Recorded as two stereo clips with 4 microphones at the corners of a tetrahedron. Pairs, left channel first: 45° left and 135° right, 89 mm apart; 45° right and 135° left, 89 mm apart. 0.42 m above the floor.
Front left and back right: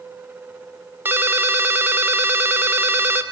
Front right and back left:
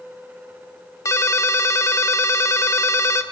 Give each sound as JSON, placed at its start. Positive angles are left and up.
{"t": 1.1, "sound": "a ringtone", "azimuth_deg": -80, "distance_m": 0.6}